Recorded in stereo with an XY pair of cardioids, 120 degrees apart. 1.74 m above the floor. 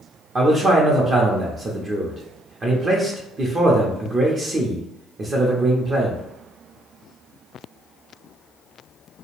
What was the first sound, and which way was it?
A man speaking, 35° right.